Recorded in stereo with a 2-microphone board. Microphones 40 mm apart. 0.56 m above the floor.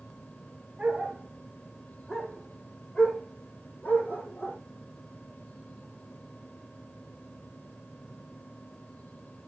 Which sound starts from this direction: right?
A dog barking, at 0.8 s.